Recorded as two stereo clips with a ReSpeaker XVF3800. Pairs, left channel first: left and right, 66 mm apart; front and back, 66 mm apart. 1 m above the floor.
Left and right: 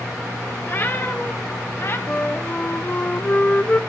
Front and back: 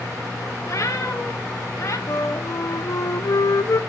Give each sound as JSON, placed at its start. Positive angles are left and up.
{"t": 0.7, "sound": "a cat meowing", "azimuth_deg": 35, "distance_m": 1.7}
{"t": 2.1, "sound": "a flute", "azimuth_deg": 25, "distance_m": 0.5}